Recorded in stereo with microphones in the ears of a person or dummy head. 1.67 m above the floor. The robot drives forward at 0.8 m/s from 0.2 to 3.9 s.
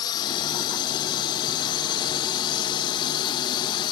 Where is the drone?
25° left (ahead or behind).